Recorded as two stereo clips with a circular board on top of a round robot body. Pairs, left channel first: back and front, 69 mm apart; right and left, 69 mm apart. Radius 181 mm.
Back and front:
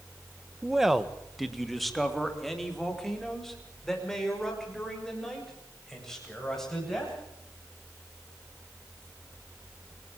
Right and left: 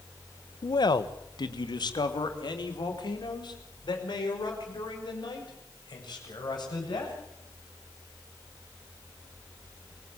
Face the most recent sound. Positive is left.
turn(degrees=-95)